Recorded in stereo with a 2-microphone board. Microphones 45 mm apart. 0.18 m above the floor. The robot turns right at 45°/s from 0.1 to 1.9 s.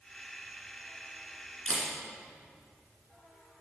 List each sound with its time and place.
1.7 s a camera shutter: 15° left (ahead or behind), 2.5 m; by 1.9 s 5° left (ahead or behind), 2.5 m